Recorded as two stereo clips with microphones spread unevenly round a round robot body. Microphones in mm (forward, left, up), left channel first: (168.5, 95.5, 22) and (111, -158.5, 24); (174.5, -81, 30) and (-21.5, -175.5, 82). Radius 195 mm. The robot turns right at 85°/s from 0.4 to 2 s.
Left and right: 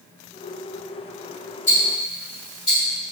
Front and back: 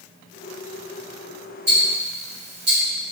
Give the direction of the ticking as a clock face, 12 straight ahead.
7 o'clock.